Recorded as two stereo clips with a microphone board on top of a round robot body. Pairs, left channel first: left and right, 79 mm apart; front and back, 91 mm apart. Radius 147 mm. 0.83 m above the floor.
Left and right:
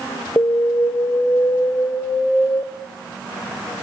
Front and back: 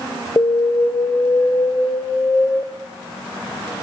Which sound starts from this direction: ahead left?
An alarm, at 0.4 s.